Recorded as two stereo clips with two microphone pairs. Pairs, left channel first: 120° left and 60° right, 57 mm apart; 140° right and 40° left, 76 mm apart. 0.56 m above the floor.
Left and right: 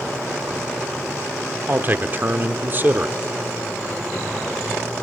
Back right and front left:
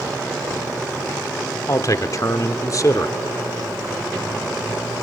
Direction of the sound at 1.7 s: 105° right.